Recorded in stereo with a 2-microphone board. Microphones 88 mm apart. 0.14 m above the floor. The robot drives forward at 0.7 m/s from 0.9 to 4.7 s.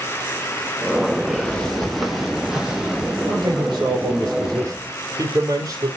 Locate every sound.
1.2 s footsteps: 20° left (ahead or behind), 3 m; by 3.2 s 15° right (ahead or behind), 5 m
3.3 s a man speaking: 55° right (ahead or behind), 3 m; by 5.9 s 45° right (ahead or behind), 3 m